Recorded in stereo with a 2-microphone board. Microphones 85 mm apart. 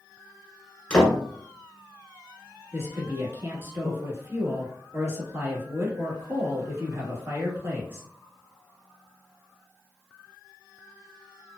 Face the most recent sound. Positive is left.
turn(degrees=-30)  # may be behind; listen again after turning